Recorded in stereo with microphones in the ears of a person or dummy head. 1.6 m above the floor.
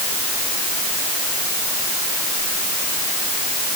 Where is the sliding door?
I don't hear a sliding door.